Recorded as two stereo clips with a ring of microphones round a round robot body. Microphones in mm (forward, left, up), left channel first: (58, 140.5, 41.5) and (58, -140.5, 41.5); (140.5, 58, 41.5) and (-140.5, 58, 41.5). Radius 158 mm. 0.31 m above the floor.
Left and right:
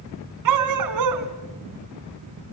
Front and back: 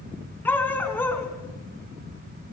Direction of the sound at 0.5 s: 85° right.